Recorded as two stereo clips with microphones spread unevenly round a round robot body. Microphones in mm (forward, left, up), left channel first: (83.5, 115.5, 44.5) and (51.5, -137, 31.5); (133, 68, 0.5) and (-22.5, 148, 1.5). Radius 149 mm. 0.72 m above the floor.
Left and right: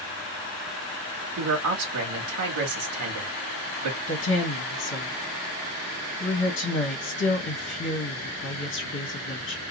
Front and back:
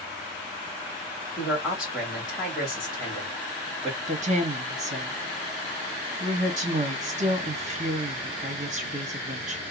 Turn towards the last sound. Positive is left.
turn(degrees=120)